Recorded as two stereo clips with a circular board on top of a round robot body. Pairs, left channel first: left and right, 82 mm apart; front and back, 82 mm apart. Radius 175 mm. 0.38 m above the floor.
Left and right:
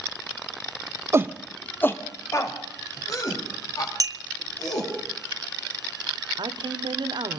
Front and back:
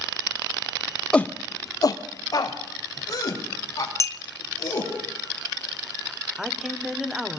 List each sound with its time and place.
1.1 s a shout: 70° right, 0.8 m; by 4.9 s 50° left, 5.5 m
4.0 s a clink: 50° right, 1.0 m
6.4 s a woman speaking: 100° right, 1.8 m